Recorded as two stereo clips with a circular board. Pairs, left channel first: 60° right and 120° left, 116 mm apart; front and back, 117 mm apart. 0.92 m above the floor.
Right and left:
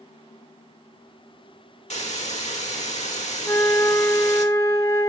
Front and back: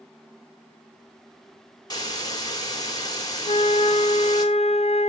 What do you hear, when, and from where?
1.9 s a hiss: 55° right, 2.5 m
3.5 s a flute: straight ahead, 0.7 m